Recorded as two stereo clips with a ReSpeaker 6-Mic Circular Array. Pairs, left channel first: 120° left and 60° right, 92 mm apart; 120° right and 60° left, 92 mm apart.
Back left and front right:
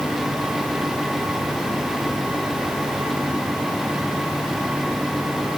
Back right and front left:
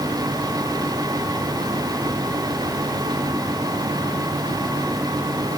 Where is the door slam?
No door slam in this recording.